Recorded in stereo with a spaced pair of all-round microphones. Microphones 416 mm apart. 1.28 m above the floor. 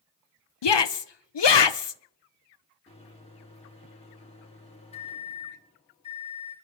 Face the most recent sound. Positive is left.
turn(degrees=15)  # may be behind; listen again after turning